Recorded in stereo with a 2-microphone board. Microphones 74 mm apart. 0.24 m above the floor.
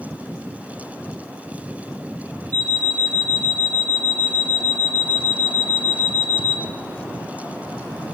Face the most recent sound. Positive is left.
turn(degrees=-55)  # may be behind; listen again after turning